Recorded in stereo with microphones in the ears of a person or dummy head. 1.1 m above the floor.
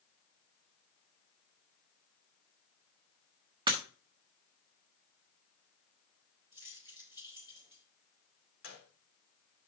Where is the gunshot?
80° left, 1.9 m.